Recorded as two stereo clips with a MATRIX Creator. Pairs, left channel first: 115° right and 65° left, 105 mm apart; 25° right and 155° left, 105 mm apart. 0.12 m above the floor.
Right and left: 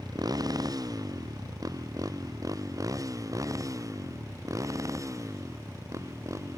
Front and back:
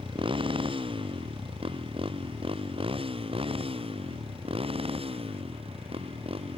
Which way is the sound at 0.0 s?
120° left.